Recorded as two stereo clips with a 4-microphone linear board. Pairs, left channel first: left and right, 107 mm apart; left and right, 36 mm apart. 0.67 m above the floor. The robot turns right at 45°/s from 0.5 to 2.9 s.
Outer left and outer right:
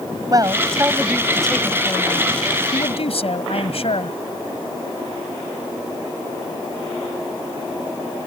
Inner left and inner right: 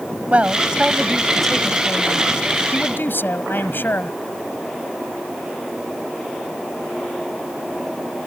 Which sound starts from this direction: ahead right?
A man speaking, at 0.3 s.